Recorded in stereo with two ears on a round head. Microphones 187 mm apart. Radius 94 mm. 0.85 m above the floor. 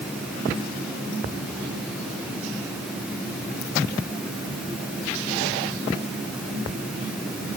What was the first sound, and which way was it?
Only background noise.